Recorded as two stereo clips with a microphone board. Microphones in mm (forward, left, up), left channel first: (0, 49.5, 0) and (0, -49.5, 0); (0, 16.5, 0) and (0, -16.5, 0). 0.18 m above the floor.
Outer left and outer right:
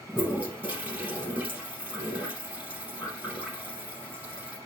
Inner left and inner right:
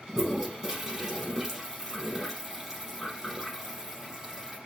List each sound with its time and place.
0.1 s a toilet flushing: 10° right (ahead or behind), 2.5 m